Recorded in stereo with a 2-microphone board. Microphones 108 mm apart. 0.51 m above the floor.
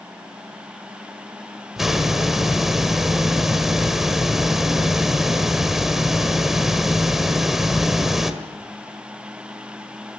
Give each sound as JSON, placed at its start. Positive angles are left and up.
{"t": 1.8, "sound": "a hiss", "side_deg": -5, "distance_m": 1.6}